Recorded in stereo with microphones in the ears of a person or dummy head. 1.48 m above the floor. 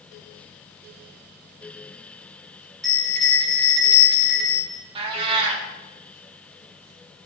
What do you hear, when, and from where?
2.8 s a bell: centre (ahead or behind), 3.5 m
5.0 s a cat meowing: 30° right (ahead or behind), 1.5 m